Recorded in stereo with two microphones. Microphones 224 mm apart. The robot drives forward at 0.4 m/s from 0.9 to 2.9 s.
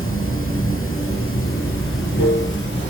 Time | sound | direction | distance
0.0 | running water | 70° left (ahead or behind) | 2 m